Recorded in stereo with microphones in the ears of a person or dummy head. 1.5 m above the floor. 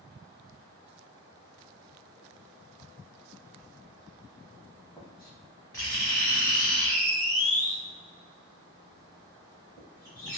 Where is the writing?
15° left (ahead or behind), 0.7 m.